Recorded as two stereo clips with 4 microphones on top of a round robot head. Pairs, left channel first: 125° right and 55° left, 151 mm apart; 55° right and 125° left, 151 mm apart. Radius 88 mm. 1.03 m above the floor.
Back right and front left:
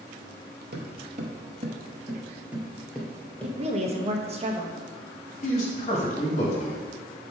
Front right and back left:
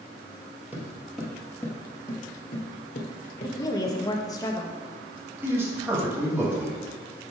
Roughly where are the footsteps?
Ahead left.